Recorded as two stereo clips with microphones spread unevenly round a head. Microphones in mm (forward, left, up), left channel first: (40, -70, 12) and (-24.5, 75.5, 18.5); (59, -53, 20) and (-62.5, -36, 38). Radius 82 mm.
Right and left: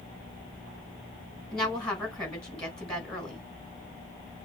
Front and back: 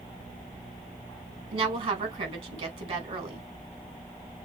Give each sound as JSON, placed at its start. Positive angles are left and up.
{"t": 1.5, "sound": "a woman speaking", "azimuth_deg": -150, "distance_m": 4.5}